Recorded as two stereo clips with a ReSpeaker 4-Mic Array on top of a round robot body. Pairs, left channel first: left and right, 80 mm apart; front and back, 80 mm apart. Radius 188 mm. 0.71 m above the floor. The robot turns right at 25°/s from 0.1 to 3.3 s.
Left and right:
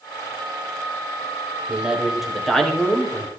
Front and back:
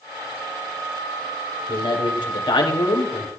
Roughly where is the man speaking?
Ahead.